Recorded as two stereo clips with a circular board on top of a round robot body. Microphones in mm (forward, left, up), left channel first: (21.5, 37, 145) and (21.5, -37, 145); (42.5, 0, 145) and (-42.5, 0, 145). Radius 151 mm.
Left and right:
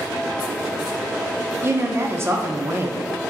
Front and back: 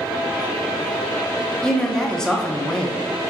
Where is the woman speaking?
80° right, 0.8 m.